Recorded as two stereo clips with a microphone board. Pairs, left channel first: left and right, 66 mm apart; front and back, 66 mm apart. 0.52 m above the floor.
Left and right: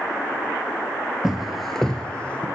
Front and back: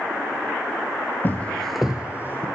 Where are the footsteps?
15° right, 0.5 m; by 2.5 s 150° left, 0.6 m.